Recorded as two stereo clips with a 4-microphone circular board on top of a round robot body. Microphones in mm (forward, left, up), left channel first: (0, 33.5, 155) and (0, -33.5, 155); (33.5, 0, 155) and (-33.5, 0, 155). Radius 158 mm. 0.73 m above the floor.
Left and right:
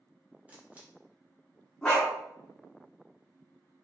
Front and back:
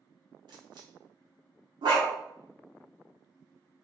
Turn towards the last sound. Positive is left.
turn(degrees=170)